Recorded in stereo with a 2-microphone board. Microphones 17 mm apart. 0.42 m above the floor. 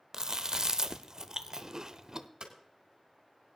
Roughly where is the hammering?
Right.